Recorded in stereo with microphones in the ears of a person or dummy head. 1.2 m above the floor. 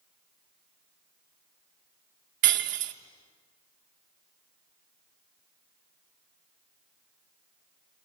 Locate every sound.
2.4 s breaking glass: 45° right (ahead or behind), 0.9 m